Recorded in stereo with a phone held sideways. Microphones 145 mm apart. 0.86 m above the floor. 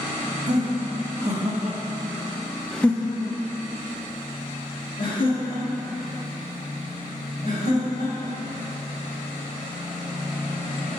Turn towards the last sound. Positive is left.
turn(degrees=85)